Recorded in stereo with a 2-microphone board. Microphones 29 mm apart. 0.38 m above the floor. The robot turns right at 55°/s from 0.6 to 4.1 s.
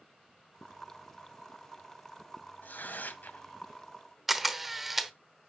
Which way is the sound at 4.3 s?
5° right (ahead or behind).